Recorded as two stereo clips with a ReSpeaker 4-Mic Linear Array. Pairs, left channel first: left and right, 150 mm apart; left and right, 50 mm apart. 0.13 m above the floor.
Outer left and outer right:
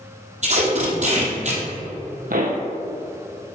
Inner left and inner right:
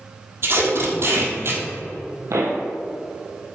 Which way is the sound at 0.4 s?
55° right (ahead or behind).